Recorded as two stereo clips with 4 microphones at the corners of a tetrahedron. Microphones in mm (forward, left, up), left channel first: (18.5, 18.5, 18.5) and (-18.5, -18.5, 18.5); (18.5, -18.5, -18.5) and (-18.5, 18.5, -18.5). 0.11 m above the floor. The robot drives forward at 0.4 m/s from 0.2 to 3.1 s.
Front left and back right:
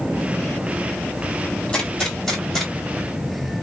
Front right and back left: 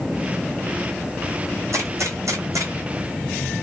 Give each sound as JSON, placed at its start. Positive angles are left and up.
{"t": 1.7, "sound": "a gunshot", "azimuth_deg": 115, "distance_m": 1.2}